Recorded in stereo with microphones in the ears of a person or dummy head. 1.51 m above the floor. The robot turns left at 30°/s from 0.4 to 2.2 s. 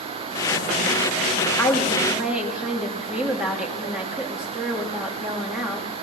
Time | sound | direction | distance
1.6 | a woman speaking | 15° left (ahead or behind) | 3 m